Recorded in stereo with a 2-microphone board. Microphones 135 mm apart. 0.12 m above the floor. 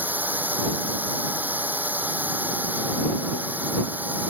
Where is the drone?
15° right (ahead or behind).